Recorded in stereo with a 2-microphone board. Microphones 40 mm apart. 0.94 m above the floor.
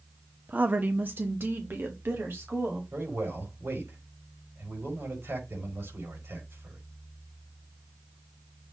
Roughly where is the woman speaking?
Right.